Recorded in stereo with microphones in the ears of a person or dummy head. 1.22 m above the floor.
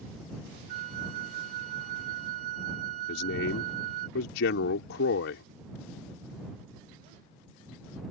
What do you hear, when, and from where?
0.7 s a flute: 45° right (ahead or behind)
3.1 s a man speaking: 75° left (ahead or behind)